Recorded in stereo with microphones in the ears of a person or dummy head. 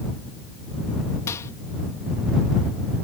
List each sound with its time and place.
1.3 s a microwave: 20° left (ahead or behind)